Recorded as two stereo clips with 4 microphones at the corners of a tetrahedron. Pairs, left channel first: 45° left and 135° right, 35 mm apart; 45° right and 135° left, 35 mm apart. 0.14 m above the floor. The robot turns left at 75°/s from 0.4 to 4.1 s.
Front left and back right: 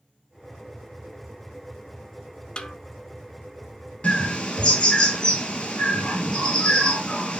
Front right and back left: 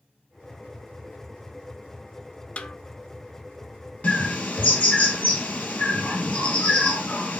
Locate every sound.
2.6 s a snare drum: 10° right, 0.5 m; by 2.8 s 25° right, 0.5 m
4.0 s a bird: straight ahead, 1.3 m; by 7.4 s 5° right, 1.3 m